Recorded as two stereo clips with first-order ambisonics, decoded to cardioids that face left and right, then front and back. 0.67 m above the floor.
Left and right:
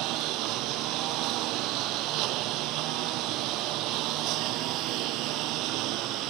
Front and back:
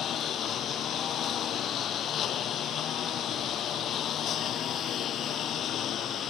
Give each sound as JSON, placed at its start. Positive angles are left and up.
{"t": 0.0, "sound": "a lawn mower", "azimuth_deg": -55}